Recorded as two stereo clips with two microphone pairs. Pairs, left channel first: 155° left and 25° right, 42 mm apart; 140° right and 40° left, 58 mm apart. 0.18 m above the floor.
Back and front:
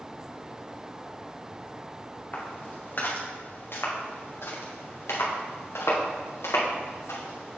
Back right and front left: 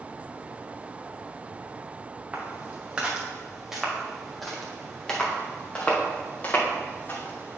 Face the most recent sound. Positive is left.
turn(degrees=170)